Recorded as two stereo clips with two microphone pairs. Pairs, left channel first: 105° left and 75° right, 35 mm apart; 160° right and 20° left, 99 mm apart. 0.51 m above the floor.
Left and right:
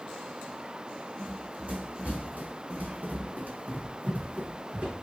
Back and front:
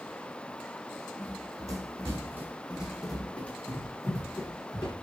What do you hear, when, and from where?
1.2 s running footsteps: 25° right, 1.3 m; by 4.9 s 120° right, 1.4 m